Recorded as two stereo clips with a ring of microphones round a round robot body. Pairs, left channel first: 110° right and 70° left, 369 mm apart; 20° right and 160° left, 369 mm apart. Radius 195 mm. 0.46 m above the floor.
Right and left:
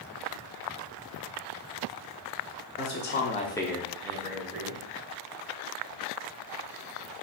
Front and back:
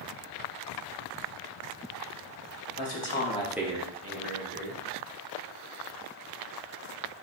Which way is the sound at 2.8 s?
60° right.